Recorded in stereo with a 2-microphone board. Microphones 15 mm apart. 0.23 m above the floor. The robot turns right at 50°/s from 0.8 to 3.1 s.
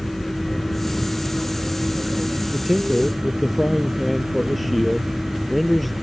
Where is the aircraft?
155° left; by 6.0 s 90° right.